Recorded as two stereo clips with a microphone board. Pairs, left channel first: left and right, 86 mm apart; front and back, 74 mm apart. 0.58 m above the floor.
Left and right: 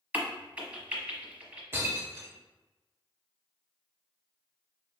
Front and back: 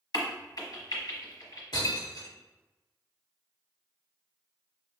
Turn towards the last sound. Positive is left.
turn(degrees=-30)